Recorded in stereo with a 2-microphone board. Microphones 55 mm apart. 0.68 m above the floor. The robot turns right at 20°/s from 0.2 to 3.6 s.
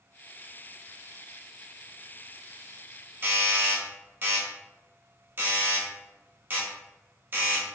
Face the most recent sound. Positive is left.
turn(degrees=-35)  # may be behind; listen again after turning